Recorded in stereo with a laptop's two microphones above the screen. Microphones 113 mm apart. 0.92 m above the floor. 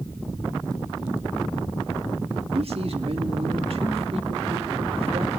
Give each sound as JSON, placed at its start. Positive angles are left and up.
{"t": 2.5, "sound": "a man speaking", "side_deg": -60, "distance_m": 1.9}